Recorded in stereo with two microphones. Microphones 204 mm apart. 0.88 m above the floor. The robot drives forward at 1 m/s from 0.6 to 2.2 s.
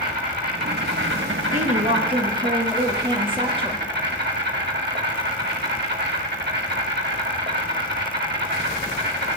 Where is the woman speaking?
40° right (ahead or behind), 0.9 m; by 3.8 s 25° right (ahead or behind), 1.4 m.